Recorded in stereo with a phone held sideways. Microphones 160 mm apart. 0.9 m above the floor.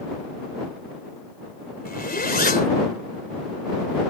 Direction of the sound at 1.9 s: 80° left.